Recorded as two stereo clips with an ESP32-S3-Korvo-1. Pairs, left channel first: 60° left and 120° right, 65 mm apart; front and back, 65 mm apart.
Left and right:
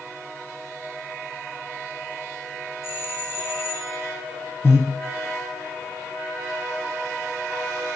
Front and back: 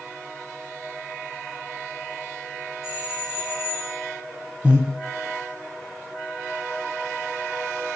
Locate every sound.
2.8 s a doorbell: 105° left, 4 m
4.6 s breathing: 110° left, 2 m